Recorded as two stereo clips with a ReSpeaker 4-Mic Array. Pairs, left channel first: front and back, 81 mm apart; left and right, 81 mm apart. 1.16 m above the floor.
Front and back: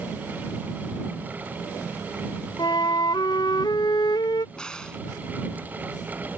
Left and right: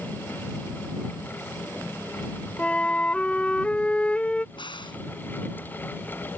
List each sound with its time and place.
2.6 s a flute: 15° left
4.5 s a crack: 80° left